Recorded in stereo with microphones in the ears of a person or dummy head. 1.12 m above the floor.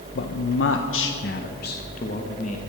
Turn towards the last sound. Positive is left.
turn(degrees=35)  # may be behind; listen again after turning